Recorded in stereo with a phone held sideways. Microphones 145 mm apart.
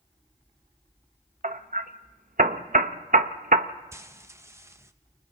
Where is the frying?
20° right (ahead or behind), 0.8 m.